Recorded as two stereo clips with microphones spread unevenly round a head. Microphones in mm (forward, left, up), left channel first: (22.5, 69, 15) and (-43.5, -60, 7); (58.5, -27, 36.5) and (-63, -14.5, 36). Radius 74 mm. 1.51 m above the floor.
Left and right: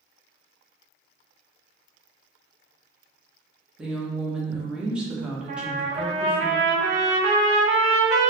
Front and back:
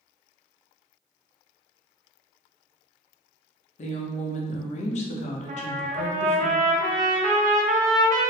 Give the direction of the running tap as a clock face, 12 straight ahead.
I don't hear a running tap.